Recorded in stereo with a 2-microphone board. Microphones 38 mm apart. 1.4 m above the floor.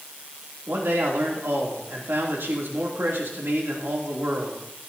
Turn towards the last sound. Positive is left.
turn(degrees=-80)